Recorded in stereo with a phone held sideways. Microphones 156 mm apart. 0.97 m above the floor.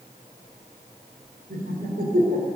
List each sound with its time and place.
1.5 s laughter: 70° right (ahead or behind), 3.5 m